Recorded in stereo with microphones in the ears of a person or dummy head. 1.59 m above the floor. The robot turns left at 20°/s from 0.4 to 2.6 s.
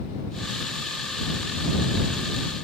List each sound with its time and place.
Only background noise.